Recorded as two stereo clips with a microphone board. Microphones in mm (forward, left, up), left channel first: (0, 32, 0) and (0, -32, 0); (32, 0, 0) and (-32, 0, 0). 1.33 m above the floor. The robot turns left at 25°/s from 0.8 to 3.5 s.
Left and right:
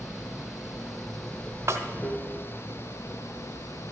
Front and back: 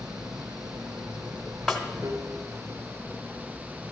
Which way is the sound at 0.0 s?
175° right.